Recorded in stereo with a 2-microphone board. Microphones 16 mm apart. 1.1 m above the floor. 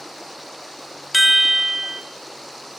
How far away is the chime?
About 0.7 m.